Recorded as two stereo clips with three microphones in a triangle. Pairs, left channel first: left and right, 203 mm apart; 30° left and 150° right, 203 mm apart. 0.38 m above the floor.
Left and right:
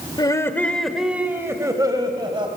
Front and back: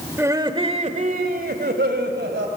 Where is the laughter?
140° left, 1.3 m; by 2.5 s 155° right, 2.5 m.